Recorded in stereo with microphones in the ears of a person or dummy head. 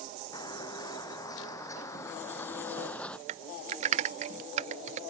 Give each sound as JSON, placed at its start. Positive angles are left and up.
{"t": 0.3, "sound": "footsteps", "side_deg": 30}
{"t": 3.3, "sound": "typing on a keyboard", "side_deg": -45}